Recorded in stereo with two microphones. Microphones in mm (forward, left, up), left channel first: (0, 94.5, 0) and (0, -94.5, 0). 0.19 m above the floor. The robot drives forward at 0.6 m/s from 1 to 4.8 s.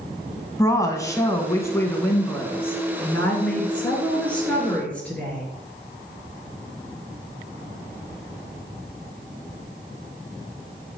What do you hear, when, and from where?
0.6 s a woman speaking: 15° left (ahead or behind), 1.3 m; by 5.4 s 5° left (ahead or behind), 3 m